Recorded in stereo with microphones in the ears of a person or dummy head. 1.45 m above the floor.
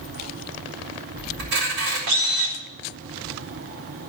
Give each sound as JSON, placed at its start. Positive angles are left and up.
{"t": 1.4, "sound": "a camera shutter", "side_deg": -70, "distance_m": 4.0}